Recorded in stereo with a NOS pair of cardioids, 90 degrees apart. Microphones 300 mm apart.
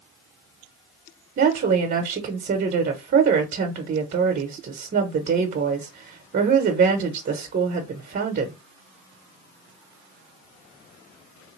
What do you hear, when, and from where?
1.4 s a woman speaking: 40° right, 1.0 m